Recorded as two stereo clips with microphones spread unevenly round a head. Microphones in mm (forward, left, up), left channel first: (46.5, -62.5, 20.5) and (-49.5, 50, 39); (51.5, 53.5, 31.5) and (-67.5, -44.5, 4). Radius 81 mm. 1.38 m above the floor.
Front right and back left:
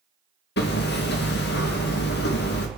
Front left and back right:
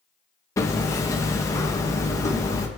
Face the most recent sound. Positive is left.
turn(degrees=-30)